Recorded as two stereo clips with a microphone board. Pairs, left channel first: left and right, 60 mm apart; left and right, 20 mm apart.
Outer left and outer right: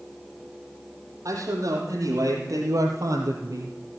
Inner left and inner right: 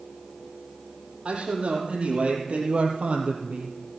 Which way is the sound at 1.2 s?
65° right (ahead or behind).